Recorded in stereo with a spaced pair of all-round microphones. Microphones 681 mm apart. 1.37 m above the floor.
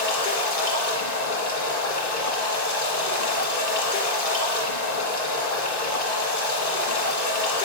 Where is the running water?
75° left (ahead or behind), 1.8 m.